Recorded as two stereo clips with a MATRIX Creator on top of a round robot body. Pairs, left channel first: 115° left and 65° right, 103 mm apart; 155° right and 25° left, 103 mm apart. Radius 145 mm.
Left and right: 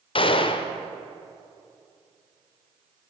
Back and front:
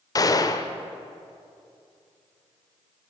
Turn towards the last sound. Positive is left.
turn(degrees=150)